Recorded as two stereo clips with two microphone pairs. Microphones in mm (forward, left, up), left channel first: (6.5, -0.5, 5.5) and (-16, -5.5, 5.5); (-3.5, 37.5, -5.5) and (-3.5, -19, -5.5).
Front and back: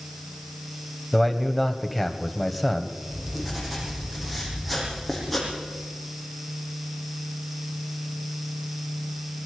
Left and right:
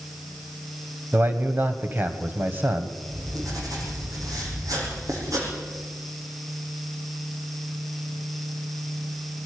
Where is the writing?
75° right, 6.5 m.